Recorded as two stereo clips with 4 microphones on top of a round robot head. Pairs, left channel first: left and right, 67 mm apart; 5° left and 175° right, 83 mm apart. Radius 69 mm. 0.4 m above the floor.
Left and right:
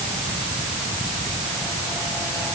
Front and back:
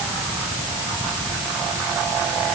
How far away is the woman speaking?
I don't hear a woman speaking.